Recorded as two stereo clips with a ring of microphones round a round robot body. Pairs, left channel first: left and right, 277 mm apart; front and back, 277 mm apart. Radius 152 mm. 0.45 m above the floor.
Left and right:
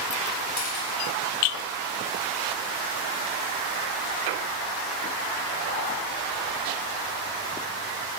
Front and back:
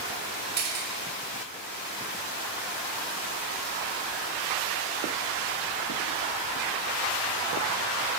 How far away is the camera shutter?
About 5 m.